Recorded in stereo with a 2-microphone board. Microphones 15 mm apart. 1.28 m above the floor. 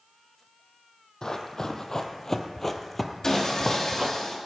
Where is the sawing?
35° left (ahead or behind), 2.5 m.